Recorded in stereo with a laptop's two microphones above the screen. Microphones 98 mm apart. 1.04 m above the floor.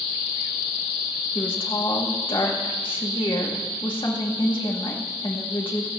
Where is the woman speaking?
60° left (ahead or behind), 1.9 m.